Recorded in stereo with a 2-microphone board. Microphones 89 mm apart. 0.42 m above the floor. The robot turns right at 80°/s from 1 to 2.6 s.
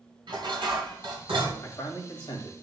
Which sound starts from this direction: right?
Dishes clattering, at 0.3 s.